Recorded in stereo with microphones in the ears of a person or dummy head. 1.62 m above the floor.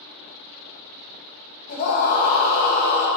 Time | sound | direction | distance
1.7 | a scream | 50° left (ahead or behind) | 2 m